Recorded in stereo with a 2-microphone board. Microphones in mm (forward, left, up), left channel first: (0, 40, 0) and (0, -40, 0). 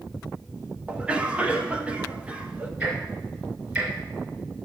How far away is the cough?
About 0.9 m.